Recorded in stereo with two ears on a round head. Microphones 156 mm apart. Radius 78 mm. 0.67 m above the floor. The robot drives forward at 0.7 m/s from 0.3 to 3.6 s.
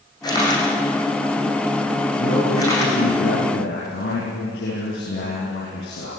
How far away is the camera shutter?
About 8.5 m.